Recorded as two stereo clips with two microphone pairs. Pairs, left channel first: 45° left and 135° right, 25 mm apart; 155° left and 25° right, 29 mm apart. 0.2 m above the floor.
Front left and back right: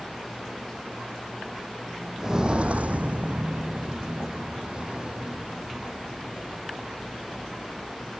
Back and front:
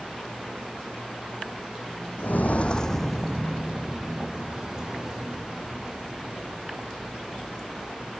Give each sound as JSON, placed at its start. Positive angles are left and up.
{"t": 2.2, "sound": "footsteps", "azimuth_deg": 150}